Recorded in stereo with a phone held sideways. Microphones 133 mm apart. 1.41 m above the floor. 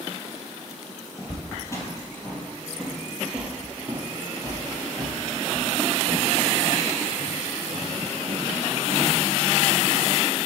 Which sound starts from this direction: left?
Footsteps, at 1.2 s.